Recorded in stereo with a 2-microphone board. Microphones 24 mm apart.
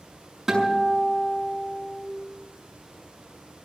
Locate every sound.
0.5 s a guitar: 15° right (ahead or behind), 6 m